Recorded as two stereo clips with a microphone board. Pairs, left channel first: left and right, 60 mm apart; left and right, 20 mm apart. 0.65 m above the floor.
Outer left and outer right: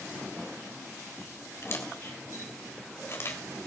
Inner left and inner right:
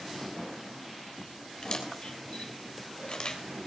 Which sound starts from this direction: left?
A camera shutter, at 1.6 s.